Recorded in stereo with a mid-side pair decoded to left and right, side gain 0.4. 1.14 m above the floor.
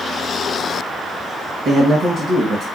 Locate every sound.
1.6 s a man speaking: 65° right, 1.2 m